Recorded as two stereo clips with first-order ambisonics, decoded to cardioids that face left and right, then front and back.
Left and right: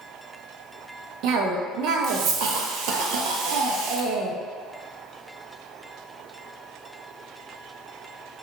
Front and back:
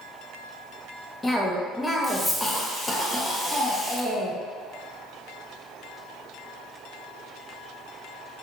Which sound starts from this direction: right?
A cough, at 1.2 s.